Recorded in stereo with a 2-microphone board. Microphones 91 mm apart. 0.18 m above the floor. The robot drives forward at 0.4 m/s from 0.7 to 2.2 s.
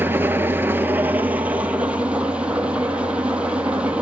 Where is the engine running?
20° right (ahead or behind), 0.7 m; by 4.0 s 10° right (ahead or behind), 1.3 m.